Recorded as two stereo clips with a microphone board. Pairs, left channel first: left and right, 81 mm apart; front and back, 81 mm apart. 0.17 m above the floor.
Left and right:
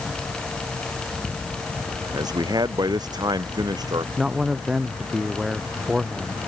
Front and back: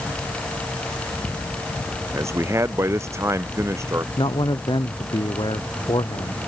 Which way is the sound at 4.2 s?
5° right.